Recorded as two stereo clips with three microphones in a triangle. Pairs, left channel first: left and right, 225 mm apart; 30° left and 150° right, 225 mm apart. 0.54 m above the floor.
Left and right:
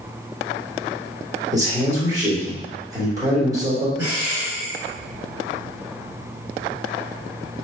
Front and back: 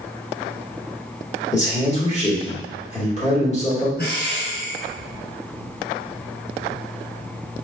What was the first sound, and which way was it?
A man speaking, 20° right.